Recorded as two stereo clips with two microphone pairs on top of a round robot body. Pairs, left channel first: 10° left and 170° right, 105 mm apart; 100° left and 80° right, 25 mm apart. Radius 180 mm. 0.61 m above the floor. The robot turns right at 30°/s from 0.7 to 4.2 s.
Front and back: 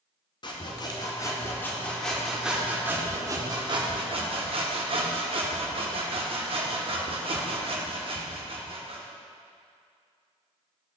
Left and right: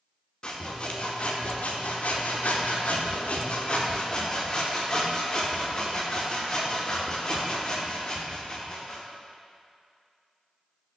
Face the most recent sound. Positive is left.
turn(degrees=160)